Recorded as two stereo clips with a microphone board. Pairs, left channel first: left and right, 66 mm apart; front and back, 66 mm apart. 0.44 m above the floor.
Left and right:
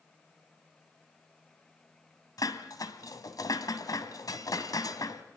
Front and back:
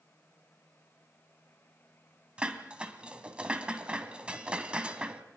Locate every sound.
2.4 s dishes clattering: 110° left, 2 m